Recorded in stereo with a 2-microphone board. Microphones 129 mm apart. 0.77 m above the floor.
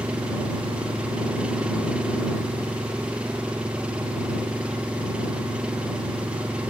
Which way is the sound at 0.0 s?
10° right (ahead or behind).